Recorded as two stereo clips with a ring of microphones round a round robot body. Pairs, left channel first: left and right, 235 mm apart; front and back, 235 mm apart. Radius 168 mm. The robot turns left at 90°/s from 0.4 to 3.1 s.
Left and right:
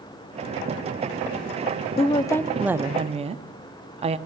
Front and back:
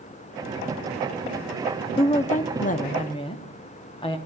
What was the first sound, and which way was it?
A woman speaking, 50° left.